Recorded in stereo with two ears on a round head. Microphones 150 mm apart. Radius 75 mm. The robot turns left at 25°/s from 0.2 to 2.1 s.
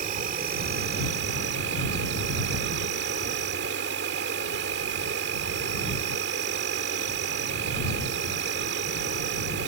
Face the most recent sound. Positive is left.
turn(degrees=-100)